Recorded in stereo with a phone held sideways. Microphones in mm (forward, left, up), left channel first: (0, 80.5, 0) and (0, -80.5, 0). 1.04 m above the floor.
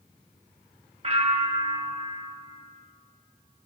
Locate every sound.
1.0 s a bell: 40° right (ahead or behind), 0.8 m